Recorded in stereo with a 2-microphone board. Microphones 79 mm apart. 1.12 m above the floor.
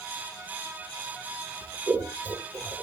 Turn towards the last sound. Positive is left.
turn(degrees=-25)  # may be behind; listen again after turning